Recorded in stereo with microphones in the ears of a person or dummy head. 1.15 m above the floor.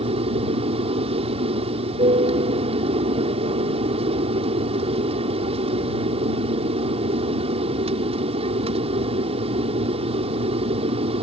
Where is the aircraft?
30° right (ahead or behind).